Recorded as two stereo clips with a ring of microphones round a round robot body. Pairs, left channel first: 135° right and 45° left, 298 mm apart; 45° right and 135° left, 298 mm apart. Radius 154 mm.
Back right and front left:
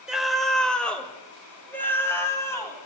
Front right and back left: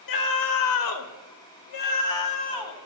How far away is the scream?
About 1.3 m.